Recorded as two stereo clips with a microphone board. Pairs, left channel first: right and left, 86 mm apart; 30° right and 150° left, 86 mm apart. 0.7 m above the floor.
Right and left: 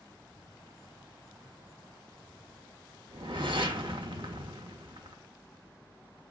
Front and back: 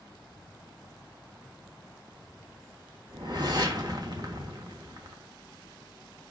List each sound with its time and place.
3.1 s a whoosh: 110° left, 1.0 m